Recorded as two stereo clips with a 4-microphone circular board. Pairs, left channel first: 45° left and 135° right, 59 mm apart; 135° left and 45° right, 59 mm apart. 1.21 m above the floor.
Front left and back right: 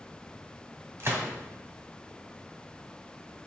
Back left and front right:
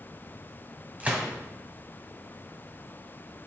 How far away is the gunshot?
About 1.7 m.